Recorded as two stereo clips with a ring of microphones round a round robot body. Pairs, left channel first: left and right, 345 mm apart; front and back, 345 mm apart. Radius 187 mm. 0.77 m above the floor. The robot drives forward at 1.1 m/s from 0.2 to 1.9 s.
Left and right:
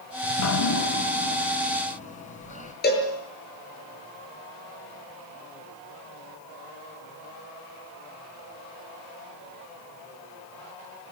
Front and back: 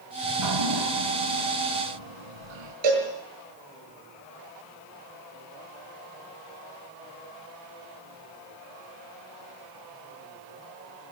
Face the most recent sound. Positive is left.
turn(degrees=155)